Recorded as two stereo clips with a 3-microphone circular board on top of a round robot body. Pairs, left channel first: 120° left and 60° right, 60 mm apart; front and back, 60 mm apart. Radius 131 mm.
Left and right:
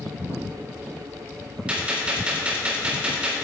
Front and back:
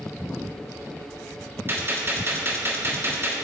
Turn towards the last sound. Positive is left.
turn(degrees=-130)